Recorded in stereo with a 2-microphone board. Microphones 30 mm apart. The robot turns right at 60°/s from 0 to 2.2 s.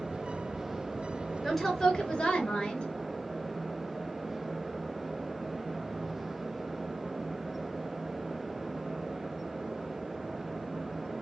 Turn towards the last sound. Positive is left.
turn(degrees=40)